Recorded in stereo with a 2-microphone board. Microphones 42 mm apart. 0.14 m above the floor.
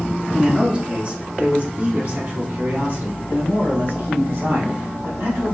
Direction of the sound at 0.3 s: 15° right (ahead or behind).